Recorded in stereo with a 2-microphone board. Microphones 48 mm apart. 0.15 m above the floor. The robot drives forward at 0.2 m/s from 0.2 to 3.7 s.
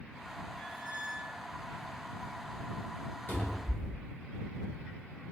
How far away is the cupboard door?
About 1.1 m.